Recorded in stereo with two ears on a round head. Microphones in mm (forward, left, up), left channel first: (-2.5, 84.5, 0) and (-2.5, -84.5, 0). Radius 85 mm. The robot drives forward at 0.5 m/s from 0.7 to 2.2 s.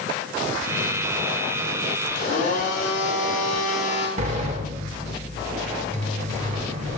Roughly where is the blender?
Left.